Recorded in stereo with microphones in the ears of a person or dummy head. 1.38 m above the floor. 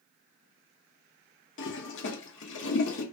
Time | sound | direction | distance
1.6 | a toilet flushing | 60° left (ahead or behind) | 0.7 m